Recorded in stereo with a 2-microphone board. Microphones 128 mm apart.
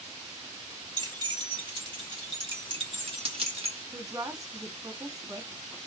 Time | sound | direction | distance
1.0 | keys jangling | 35° right (ahead or behind) | 2.5 m
3.9 | a woman speaking | 30° right (ahead or behind) | 1.4 m